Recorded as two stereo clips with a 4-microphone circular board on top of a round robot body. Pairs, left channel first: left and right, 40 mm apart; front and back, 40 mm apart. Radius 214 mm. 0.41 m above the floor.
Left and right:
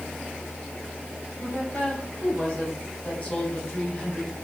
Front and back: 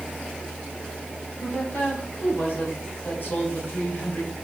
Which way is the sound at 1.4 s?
35° left.